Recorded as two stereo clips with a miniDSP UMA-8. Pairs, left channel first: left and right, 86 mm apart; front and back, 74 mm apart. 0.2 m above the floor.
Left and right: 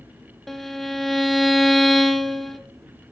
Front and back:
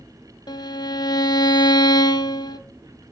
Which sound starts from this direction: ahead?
A violin, at 0.5 s.